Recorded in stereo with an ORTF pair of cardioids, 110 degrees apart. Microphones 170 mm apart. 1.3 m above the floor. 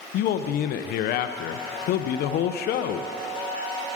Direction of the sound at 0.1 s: 70° left.